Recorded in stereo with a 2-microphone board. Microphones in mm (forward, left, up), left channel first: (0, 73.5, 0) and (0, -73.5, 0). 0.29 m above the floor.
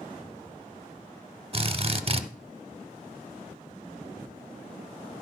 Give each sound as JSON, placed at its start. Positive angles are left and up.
{"t": 1.5, "sound": "a drill", "side_deg": -40, "distance_m": 0.6}